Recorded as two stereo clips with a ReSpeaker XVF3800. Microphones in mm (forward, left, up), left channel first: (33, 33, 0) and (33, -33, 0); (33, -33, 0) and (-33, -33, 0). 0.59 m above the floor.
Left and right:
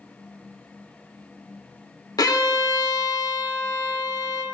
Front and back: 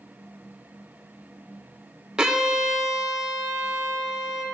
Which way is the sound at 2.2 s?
100° left.